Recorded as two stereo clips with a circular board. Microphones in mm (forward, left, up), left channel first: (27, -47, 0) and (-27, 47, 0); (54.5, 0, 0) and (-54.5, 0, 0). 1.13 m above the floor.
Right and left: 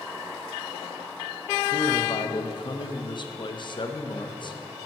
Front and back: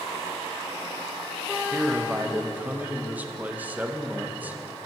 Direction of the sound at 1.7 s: 105° right.